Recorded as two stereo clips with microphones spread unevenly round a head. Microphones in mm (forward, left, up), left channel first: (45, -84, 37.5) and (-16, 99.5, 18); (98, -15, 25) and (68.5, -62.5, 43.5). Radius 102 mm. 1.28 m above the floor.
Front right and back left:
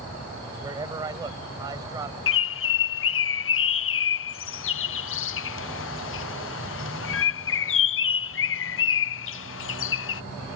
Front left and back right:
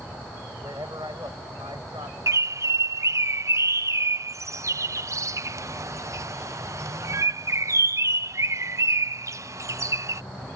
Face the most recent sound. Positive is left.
turn(degrees=-85)